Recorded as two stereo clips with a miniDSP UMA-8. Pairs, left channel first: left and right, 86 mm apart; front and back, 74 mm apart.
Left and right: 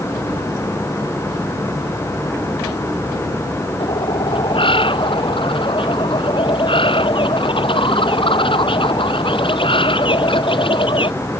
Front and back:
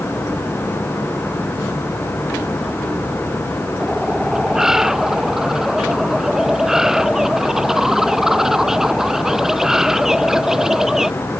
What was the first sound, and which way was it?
A bird, 95° left.